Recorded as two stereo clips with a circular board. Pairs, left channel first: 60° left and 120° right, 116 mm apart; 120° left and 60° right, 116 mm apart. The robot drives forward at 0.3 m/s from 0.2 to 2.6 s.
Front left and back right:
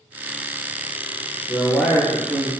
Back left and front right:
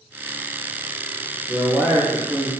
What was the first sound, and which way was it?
A man speaking, 30° right.